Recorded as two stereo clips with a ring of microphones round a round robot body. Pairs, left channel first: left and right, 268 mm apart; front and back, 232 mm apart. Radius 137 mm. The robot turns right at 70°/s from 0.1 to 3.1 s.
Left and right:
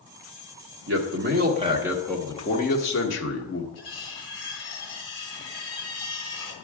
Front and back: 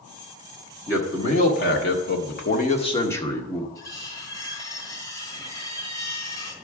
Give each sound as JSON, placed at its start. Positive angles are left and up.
{"t": 0.9, "sound": "a man speaking", "azimuth_deg": -80, "distance_m": 1.5}
{"t": 3.8, "sound": "cutlery clinking", "azimuth_deg": 75, "distance_m": 3.0}